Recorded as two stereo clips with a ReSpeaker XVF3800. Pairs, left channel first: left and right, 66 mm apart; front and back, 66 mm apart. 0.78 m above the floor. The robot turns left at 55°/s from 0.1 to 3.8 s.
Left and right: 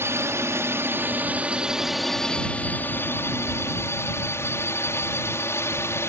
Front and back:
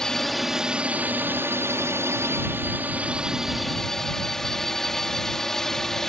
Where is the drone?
75° right; by 6.1 s 80° left.